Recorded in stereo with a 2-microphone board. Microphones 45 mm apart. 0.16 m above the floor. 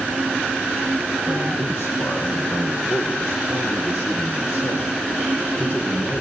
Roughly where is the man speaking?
Left.